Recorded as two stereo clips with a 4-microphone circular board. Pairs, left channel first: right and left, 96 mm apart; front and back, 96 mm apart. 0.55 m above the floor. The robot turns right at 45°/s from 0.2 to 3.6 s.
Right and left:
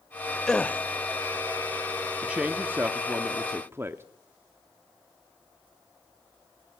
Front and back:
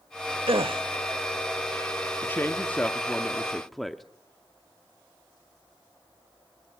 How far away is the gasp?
About 0.8 m.